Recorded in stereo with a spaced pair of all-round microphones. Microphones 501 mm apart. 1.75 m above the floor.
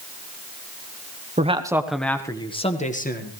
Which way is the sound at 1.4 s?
15° right (ahead or behind).